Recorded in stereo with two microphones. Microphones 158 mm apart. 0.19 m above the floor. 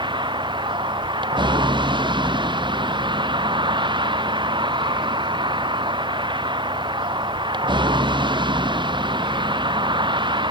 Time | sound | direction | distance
0.0 | a vehicle | 30° right (ahead or behind) | ?